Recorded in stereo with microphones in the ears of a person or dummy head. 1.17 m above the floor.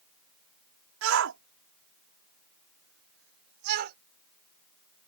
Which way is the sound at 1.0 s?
80° right.